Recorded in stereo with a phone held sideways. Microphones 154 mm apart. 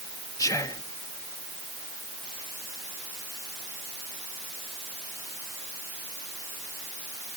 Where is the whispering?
20° left (ahead or behind), 1.1 m.